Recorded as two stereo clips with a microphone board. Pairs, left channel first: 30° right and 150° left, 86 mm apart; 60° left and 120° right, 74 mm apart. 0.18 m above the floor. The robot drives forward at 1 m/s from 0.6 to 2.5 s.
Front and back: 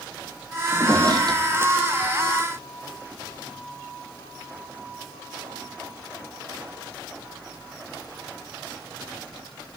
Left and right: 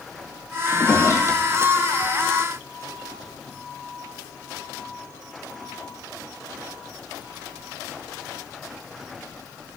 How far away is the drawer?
About 1.9 m.